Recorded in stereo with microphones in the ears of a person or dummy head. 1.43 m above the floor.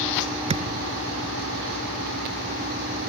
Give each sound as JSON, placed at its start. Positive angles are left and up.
{"t": 0.5, "sound": "a thud", "side_deg": -30}